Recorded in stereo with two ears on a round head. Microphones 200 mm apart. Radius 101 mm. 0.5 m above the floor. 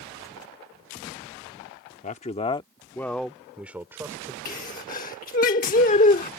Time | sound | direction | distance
2.0 | a man speaking | 35° left (ahead or behind) | ?
4.5 | a sneeze | 35° left (ahead or behind) | ?